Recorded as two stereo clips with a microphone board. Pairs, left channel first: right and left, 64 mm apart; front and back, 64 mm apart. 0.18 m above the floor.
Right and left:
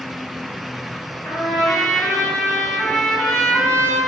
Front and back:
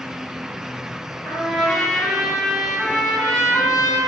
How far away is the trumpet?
About 1.4 m.